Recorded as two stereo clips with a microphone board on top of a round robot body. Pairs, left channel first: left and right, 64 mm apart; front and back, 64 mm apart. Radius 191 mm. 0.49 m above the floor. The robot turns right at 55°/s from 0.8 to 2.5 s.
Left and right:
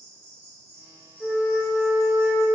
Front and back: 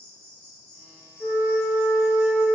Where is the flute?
35° left, 0.5 m; by 2.5 s 105° left, 0.5 m.